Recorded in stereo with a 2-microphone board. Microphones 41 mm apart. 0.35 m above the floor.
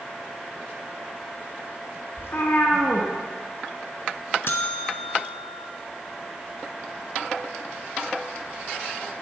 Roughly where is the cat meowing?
Left.